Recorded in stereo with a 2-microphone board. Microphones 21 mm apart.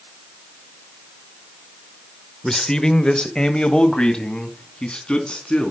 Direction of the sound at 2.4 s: 30° left (ahead or behind).